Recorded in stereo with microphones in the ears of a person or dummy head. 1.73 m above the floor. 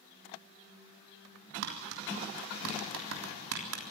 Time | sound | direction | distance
1.6 | tapping | 75° right (ahead or behind) | 3.5 m